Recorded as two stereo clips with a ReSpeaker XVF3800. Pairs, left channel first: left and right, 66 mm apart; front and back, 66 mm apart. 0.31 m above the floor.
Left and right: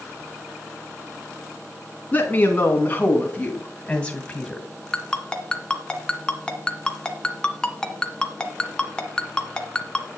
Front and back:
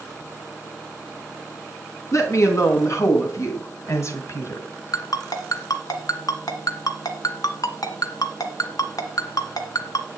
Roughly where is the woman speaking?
Ahead left.